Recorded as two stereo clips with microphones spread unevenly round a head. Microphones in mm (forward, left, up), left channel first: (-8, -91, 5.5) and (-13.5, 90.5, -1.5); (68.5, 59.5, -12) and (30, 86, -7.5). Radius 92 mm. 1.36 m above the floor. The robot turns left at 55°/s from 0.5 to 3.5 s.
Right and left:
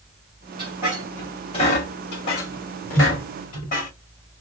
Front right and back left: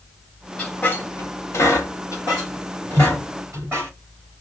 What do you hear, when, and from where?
0.6 s a squeak: 25° left, 2.0 m; by 3.9 s 135° right, 2.0 m